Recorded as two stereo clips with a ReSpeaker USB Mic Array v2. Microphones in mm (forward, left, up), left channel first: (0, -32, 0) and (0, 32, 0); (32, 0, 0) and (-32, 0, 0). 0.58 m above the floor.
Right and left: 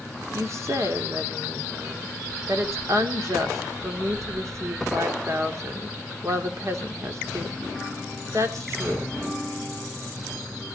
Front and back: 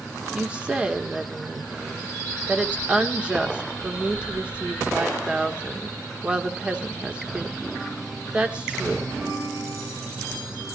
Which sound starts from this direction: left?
A woman speaking, at 0.3 s.